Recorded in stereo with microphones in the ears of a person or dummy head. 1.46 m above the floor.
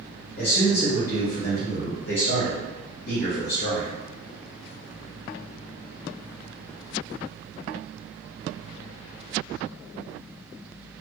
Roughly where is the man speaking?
Left.